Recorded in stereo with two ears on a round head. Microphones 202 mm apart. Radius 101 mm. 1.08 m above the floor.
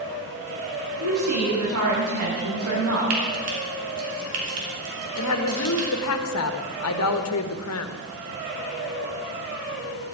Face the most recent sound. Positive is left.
turn(degrees=75)  # may be behind; listen again after turning